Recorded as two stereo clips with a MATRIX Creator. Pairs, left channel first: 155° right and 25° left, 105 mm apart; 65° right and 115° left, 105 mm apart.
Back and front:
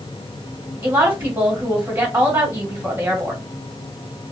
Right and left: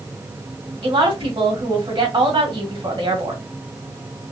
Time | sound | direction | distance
0.8 | a woman speaking | 90° left | 2 m